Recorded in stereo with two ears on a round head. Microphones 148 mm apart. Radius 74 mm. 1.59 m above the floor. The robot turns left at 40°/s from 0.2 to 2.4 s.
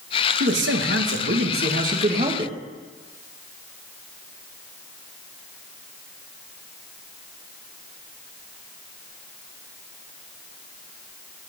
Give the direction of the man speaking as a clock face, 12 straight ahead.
2 o'clock.